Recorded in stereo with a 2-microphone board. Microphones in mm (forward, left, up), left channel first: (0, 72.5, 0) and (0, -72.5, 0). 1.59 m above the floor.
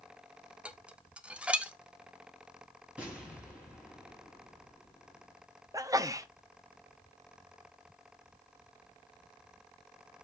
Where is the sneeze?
25° right (ahead or behind), 0.6 m.